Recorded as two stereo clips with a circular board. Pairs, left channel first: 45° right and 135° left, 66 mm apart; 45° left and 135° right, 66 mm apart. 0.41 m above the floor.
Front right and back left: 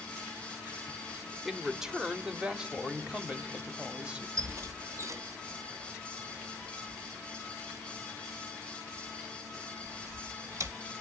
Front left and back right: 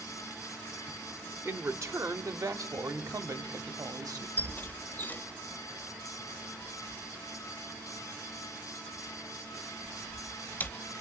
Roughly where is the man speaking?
Behind right.